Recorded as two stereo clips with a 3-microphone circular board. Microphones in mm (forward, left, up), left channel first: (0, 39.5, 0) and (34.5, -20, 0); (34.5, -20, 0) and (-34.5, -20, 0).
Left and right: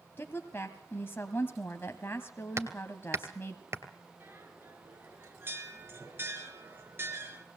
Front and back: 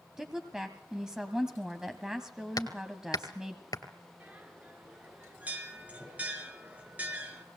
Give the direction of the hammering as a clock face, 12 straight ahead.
12 o'clock.